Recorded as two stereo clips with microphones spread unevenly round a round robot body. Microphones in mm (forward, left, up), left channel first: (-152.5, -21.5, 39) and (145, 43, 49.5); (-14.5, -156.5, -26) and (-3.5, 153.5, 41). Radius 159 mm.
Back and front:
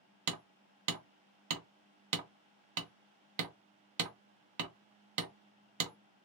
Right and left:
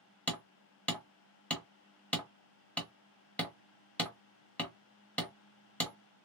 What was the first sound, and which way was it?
Hammering, 15° right.